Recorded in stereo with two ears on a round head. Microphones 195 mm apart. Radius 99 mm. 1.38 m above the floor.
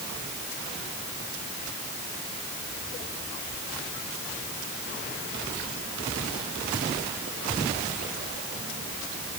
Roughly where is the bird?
I don't hear a bird.